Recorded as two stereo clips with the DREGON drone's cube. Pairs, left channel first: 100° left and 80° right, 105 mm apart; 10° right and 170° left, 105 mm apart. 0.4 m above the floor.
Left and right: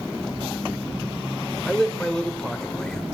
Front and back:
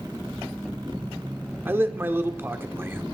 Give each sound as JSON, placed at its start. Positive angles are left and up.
{"t": 1.6, "sound": "a man speaking", "azimuth_deg": 170, "distance_m": 0.8}